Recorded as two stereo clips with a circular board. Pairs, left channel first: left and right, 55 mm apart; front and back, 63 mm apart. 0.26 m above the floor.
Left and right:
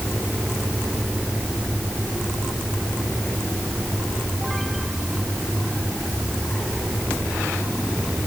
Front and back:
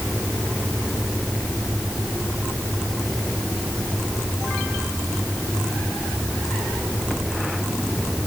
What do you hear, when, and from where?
Only background noise.